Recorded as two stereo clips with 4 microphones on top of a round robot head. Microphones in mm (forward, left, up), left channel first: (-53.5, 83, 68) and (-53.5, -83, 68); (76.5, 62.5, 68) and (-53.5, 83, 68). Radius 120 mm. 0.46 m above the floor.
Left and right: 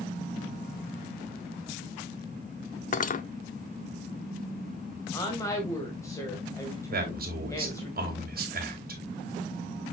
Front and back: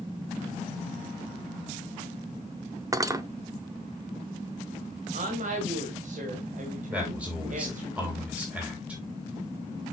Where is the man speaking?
110° right, 3 m.